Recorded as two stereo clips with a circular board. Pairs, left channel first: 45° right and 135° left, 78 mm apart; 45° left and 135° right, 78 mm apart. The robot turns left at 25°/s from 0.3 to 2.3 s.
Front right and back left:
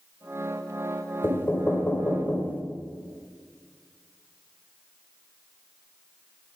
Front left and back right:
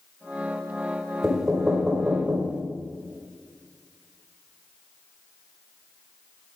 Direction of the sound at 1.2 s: 55° right.